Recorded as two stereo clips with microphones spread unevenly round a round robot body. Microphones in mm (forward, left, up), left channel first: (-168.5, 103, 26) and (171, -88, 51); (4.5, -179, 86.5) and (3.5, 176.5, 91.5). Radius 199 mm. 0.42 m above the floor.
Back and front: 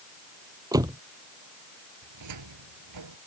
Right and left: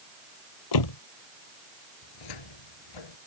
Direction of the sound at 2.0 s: 75° right.